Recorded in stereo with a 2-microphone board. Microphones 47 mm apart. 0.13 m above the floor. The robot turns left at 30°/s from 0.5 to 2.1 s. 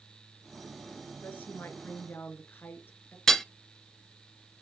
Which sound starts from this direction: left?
A woman speaking, at 1.2 s.